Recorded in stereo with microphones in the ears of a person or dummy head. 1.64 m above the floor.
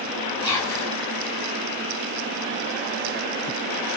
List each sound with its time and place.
0.4 s whispering: centre (ahead or behind), 1.6 m